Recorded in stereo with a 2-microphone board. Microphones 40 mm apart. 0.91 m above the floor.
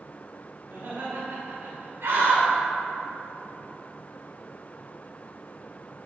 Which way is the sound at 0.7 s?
75° right (ahead or behind).